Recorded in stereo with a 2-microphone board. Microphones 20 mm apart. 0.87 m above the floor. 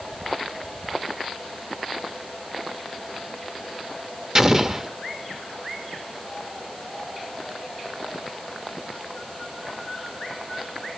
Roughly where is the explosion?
Right.